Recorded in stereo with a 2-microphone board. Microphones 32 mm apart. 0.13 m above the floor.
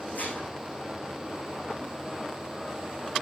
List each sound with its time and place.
0.1 s dishes clattering: 75° left (ahead or behind), 5 m